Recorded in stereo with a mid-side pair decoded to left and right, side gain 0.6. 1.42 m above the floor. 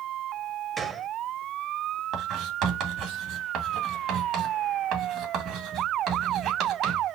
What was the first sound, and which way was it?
A gunshot, 25° right.